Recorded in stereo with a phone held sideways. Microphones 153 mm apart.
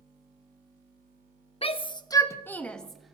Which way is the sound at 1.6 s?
40° left (ahead or behind).